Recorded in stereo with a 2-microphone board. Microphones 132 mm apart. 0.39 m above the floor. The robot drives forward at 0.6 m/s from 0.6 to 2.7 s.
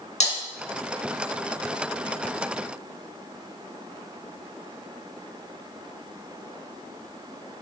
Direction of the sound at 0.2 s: 55° left (ahead or behind).